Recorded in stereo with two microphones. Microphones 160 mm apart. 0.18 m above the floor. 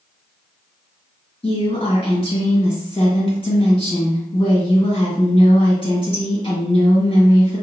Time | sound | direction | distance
1.4 | a woman speaking | 35° left (ahead or behind) | 1.7 m